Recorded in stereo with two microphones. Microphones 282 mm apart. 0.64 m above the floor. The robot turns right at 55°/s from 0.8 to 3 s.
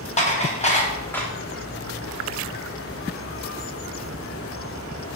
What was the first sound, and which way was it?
Dishes clattering, 25° left (ahead or behind).